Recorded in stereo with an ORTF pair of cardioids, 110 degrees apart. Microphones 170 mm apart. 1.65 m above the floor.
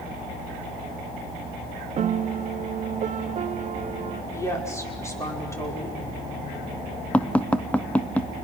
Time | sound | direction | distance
2.0 | a piano | 40° right | 0.9 m
4.3 | a woman speaking | 15° left | 5.5 m
7.1 | tapping | 5° left | 1.0 m